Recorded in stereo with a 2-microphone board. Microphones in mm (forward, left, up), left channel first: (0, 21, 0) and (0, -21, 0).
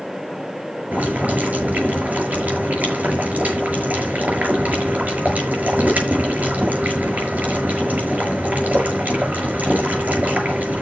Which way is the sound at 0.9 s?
40° right (ahead or behind).